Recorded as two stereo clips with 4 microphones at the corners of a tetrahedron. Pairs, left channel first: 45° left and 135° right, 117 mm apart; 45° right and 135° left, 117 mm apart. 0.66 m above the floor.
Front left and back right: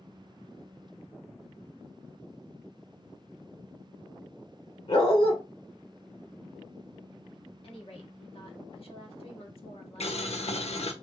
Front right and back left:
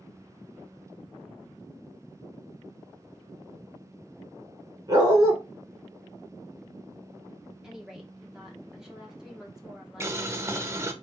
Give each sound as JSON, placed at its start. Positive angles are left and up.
{"t": 4.9, "sound": "a dog barking", "azimuth_deg": 80, "distance_m": 2.0}
{"t": 7.6, "sound": "a woman speaking", "azimuth_deg": 55, "distance_m": 1.3}
{"t": 10.0, "sound": "boiling", "azimuth_deg": 70, "distance_m": 0.6}